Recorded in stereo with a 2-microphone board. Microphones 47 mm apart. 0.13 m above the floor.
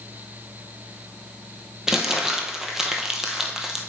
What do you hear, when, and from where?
1.9 s crumpling: 10° right (ahead or behind), 1.0 m